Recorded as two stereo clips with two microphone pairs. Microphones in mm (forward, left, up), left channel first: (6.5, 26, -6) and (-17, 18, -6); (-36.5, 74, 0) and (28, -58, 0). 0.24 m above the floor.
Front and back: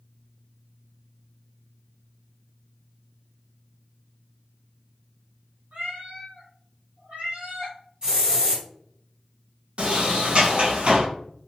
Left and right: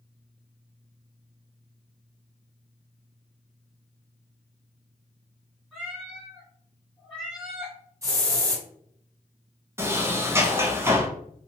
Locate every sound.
5.7 s a cat meowing: 150° right, 1.9 m
8.0 s a hiss: 125° right, 1.9 m
9.8 s a sliding door: 135° right, 0.9 m